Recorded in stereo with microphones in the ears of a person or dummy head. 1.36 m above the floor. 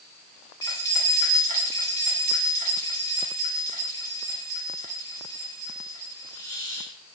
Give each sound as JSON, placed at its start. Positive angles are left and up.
{"t": 0.6, "sound": "keys jangling", "side_deg": 30, "distance_m": 1.6}